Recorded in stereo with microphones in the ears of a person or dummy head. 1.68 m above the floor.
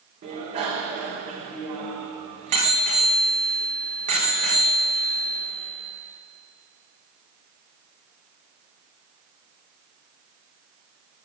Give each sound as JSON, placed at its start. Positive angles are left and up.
{"t": 0.2, "sound": "a bicycle bell", "side_deg": -30, "distance_m": 3.5}